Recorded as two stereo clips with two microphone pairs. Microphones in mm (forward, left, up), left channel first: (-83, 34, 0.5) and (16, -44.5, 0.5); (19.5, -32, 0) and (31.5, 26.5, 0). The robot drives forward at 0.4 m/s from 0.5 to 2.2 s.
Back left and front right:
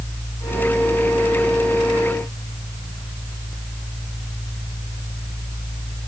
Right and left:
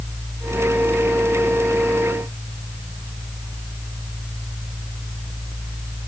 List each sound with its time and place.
Only background noise.